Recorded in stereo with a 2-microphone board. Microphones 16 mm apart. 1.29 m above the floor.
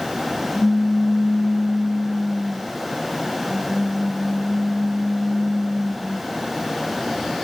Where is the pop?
70° right (ahead or behind), 3.5 m.